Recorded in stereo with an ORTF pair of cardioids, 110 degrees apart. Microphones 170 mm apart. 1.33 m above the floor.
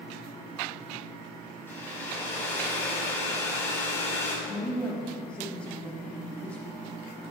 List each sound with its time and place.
1.7 s a hair dryer: 15° left, 3 m
4.5 s a woman speaking: 5° left, 3 m